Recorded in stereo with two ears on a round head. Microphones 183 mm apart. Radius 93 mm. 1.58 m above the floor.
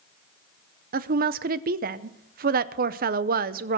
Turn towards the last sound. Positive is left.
turn(degrees=-45)  # may be behind; listen again after turning